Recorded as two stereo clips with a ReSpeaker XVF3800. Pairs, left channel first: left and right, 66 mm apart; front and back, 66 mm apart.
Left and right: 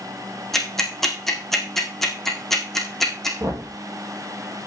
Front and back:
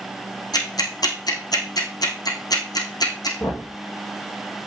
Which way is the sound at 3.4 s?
50° right.